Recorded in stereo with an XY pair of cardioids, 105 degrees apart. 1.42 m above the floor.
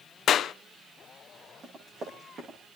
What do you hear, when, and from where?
0.3 s a clap: 60° left, 0.6 m
1.6 s running footsteps: 40° right, 10 m